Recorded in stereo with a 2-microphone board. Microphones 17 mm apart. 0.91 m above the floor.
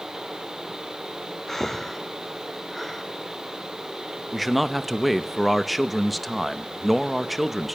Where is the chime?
I don't hear a chime.